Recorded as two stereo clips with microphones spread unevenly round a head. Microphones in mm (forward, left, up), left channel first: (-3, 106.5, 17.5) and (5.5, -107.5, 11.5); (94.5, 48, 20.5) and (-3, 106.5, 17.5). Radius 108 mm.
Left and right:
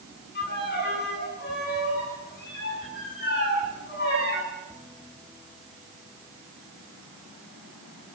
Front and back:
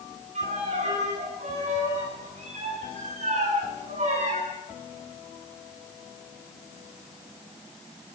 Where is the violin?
140° left, 9.5 m.